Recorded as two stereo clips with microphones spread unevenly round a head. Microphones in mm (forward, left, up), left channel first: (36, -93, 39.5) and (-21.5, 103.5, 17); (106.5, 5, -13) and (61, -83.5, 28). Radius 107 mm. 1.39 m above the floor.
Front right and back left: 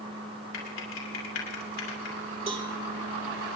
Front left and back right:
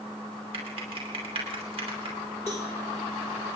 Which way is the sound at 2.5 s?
170° left.